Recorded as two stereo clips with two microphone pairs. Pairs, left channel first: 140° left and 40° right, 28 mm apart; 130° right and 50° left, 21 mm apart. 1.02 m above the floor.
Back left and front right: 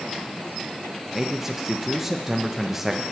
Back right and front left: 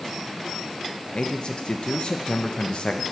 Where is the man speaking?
110° right, 0.5 m.